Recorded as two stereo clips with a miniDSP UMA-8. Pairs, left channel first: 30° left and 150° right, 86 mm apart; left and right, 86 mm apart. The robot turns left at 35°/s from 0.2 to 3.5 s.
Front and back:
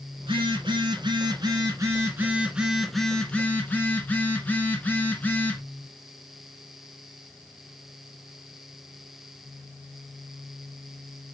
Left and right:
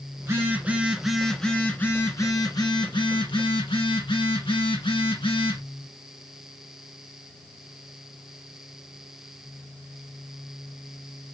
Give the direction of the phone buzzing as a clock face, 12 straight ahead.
5 o'clock.